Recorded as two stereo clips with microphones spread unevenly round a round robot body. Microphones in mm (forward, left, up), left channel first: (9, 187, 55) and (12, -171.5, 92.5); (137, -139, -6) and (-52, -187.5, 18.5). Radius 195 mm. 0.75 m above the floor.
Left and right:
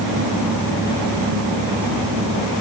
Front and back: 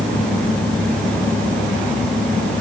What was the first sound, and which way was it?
Only background noise.